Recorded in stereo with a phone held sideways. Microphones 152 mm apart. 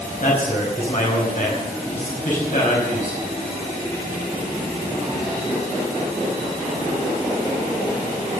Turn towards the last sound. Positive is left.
turn(degrees=60)  # may be behind; listen again after turning